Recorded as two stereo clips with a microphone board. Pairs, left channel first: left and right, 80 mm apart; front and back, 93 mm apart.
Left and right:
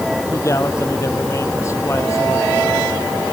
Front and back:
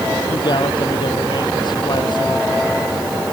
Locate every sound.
0.3 s a man speaking: 35° left